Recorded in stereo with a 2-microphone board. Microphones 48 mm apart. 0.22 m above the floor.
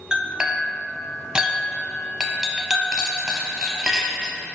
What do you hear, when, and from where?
0.1 s a clink: 15° right (ahead or behind), 0.7 m